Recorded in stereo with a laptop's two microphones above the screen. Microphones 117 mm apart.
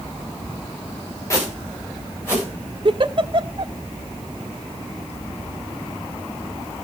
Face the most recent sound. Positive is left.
turn(degrees=-45)  # may be behind; listen again after turning